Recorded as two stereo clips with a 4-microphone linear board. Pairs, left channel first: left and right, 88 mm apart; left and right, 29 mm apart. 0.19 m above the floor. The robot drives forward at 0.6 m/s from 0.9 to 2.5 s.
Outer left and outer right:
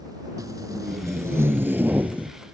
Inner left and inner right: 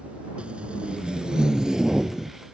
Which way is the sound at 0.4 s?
45° right (ahead or behind).